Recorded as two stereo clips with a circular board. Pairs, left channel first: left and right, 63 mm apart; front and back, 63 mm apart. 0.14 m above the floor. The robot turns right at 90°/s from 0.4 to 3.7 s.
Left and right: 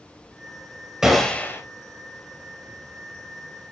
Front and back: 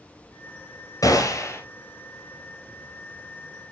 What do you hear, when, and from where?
1.0 s a gunshot: 10° right, 1.2 m; by 1.6 s 45° left, 1.2 m